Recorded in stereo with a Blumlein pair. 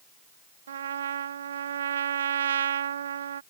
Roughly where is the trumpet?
Ahead right.